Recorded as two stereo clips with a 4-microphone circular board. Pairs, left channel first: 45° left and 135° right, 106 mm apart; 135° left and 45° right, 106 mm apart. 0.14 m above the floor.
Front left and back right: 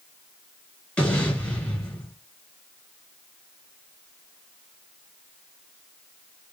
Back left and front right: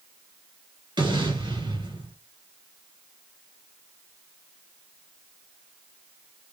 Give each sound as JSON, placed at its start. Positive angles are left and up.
{"t": 1.0, "sound": "an explosion", "azimuth_deg": -30, "distance_m": 2.0}